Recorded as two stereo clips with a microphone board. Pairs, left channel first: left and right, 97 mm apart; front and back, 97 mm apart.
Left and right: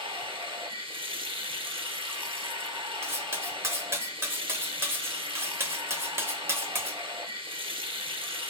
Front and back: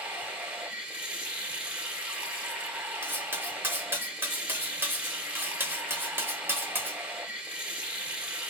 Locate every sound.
0.0 s running water: 100° right, 0.8 m
3.0 s cutlery clinking: 135° right, 0.6 m